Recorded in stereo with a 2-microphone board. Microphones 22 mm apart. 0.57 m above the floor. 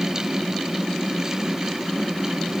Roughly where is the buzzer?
No buzzer in this recording.